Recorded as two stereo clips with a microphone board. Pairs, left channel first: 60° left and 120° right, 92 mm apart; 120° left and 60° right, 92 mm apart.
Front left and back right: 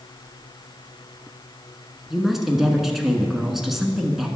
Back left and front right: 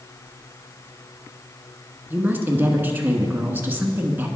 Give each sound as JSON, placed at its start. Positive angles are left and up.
{"t": 2.1, "sound": "a woman speaking", "azimuth_deg": -35, "distance_m": 1.1}